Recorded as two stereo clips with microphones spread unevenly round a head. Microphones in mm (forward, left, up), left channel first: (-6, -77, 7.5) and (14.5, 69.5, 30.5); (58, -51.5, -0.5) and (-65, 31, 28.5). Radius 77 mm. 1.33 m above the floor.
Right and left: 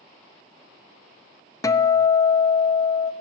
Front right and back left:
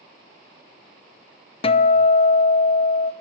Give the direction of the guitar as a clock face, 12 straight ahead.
2 o'clock.